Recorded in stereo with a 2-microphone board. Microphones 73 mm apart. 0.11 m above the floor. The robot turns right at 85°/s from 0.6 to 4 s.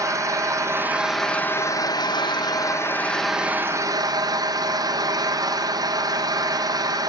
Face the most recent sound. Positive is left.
turn(degrees=-120)